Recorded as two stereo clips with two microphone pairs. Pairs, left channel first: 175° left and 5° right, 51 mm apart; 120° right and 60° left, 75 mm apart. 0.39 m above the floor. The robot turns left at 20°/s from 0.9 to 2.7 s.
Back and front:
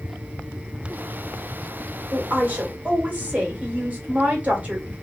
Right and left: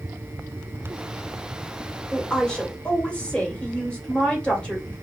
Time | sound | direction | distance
2.1 | a woman speaking | 45° right | 1.4 m